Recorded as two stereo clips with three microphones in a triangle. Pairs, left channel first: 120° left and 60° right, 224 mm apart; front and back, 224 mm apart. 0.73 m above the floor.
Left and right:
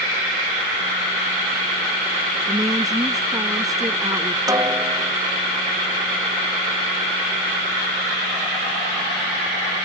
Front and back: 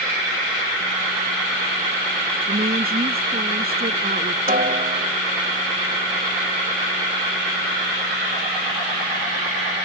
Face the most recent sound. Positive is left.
turn(degrees=-135)